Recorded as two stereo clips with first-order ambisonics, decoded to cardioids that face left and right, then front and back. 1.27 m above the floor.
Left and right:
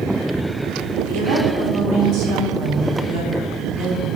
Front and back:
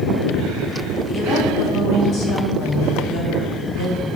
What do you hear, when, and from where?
1.0 s a woman speaking: 60° right, 3 m